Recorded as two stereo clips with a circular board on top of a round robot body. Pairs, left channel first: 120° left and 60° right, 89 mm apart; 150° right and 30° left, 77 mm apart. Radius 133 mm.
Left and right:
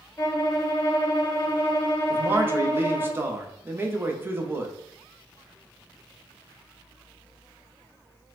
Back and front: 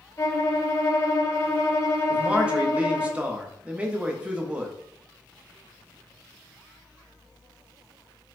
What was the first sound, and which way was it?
A violin, 165° left.